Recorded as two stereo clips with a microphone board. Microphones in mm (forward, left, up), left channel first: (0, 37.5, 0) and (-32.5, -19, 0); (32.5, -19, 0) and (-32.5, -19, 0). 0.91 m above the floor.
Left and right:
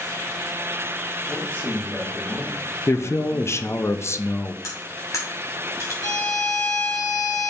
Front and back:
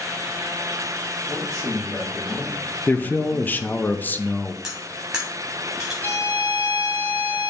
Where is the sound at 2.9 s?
50° left, 0.6 m.